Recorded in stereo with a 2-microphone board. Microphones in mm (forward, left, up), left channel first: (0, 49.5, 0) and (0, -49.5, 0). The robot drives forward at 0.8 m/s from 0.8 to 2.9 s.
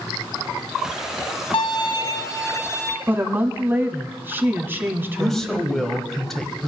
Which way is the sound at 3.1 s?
20° right (ahead or behind).